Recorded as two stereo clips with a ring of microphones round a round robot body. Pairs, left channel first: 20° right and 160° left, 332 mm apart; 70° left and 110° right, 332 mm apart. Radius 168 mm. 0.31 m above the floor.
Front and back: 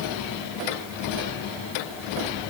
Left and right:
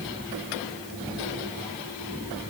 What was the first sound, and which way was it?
Only background noise.